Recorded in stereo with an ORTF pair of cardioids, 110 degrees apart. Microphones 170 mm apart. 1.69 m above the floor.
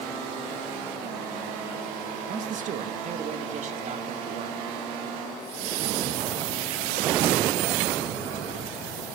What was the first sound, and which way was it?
A man speaking, 55° right.